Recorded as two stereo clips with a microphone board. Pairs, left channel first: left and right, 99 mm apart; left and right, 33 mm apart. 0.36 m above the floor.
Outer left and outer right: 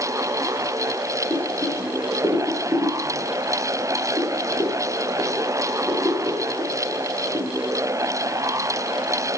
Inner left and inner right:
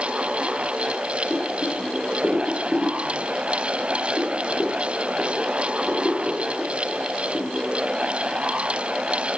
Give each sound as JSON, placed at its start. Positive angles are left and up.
{"t": 1.3, "sound": "boiling", "side_deg": -35, "distance_m": 4.5}